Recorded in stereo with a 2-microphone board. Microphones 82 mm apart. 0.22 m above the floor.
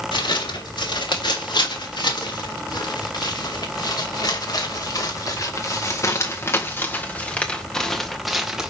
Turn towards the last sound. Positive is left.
turn(degrees=-10)  # may be behind; listen again after turning